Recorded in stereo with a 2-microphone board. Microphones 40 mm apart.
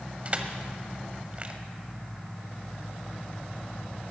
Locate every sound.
0.2 s crushing: 35° right (ahead or behind), 1.0 m